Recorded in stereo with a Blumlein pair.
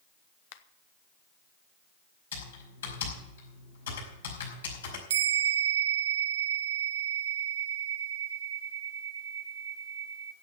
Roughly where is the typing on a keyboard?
Ahead left.